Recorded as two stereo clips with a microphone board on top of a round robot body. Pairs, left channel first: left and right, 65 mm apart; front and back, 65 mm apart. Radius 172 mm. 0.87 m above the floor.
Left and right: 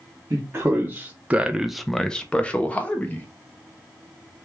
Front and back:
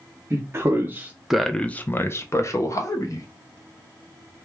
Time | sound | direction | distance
0.3 | a man speaking | 140° right | 0.8 m